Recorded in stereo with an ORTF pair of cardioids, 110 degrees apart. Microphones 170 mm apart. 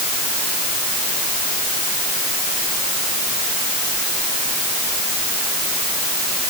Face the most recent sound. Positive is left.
No sound to turn to.